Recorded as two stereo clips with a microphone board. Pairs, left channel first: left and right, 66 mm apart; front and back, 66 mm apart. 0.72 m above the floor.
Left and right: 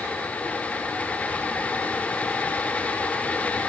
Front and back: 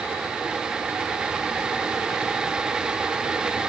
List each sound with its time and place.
Only background noise.